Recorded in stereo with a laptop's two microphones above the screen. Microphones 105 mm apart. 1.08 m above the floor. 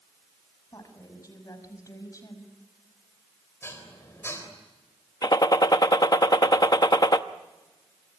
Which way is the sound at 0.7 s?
35° left (ahead or behind).